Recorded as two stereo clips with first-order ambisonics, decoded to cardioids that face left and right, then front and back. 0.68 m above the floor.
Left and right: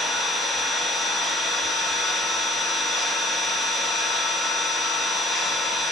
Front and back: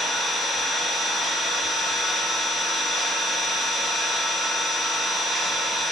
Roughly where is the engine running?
Behind left.